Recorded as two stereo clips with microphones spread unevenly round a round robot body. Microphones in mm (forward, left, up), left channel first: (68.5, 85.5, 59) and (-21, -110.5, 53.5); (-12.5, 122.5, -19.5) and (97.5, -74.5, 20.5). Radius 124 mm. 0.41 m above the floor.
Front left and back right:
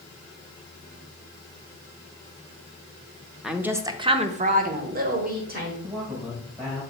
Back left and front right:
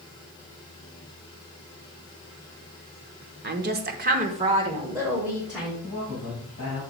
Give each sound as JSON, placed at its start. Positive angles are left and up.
{"t": 3.4, "sound": "a woman speaking", "azimuth_deg": -30, "distance_m": 0.9}
{"t": 5.8, "sound": "a man speaking", "azimuth_deg": 180, "distance_m": 3.0}